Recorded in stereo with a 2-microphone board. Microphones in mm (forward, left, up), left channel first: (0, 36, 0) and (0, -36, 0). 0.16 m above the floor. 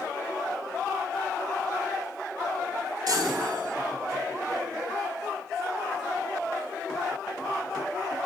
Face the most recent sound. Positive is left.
turn(degrees=-65)  # may be behind; listen again after turning